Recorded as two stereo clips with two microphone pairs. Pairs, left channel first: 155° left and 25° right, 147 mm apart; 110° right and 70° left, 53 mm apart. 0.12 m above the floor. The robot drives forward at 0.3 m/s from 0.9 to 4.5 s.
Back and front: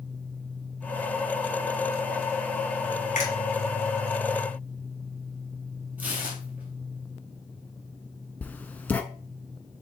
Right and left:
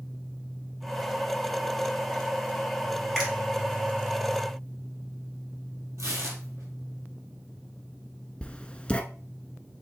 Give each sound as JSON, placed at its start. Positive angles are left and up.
{"t": 3.1, "sound": "a finger snap", "azimuth_deg": 155, "distance_m": 2.5}
{"t": 6.0, "sound": "tearing paper", "azimuth_deg": 55, "distance_m": 1.5}
{"t": 8.4, "sound": "writing", "azimuth_deg": -140, "distance_m": 0.5}